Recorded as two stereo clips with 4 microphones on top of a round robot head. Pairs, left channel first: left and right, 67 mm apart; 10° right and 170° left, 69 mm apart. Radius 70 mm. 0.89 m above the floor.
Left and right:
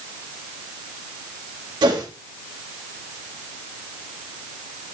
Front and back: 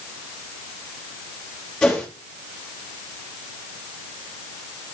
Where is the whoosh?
90° right, 2.5 m.